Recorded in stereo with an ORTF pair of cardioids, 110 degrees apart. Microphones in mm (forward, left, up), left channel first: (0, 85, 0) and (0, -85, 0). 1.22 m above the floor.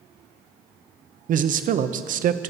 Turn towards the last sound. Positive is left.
turn(degrees=-55)